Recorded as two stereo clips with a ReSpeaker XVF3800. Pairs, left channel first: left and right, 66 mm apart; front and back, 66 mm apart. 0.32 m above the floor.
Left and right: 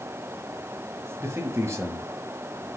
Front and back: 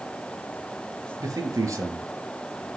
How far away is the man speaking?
About 5.5 m.